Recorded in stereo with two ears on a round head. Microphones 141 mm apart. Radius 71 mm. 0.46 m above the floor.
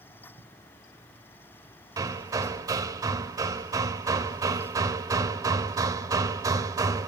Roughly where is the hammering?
Right.